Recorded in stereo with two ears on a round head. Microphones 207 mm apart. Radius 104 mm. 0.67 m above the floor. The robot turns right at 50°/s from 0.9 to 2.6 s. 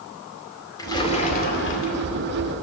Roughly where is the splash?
Ahead.